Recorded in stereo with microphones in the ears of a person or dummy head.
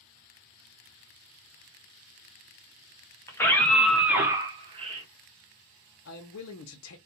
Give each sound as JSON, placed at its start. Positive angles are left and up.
{"t": 3.3, "sound": "a scream", "side_deg": 10, "distance_m": 1.1}
{"t": 6.0, "sound": "a man speaking", "side_deg": 70, "distance_m": 0.6}